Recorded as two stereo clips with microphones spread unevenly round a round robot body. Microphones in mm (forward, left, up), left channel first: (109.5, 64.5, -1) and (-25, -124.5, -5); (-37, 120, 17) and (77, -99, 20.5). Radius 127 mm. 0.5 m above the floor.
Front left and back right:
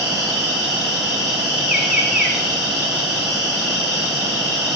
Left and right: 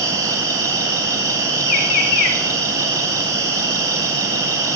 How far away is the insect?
About 4.5 m.